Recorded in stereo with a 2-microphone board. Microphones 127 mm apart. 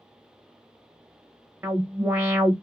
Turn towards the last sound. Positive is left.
turn(degrees=-15)  # may be behind; listen again after turning